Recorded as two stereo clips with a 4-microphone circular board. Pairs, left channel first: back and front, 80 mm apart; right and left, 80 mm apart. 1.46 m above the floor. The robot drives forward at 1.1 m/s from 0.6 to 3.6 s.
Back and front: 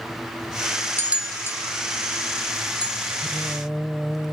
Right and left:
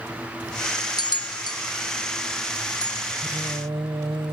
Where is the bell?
60° right; by 3.1 s 165° right.